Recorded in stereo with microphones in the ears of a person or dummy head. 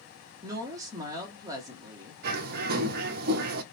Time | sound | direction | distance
0.4 | a woman speaking | 20° right (ahead or behind) | 1.7 m
2.2 | a bird | 55° right (ahead or behind) | 0.9 m